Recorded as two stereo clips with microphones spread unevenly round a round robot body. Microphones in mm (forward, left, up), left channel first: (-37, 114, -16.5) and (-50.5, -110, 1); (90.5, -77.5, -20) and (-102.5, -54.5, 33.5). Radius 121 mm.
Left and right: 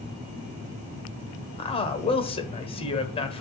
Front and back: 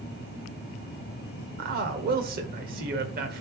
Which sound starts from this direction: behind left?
A man speaking, at 1.6 s.